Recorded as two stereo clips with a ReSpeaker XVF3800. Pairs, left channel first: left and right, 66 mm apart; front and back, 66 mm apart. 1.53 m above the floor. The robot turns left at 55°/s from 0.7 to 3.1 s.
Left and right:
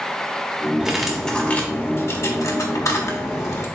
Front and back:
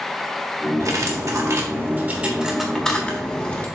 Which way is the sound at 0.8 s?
170° right.